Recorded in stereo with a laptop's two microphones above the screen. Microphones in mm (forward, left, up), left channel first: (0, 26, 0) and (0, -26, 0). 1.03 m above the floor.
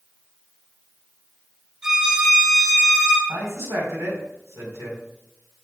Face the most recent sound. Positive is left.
turn(degrees=-80)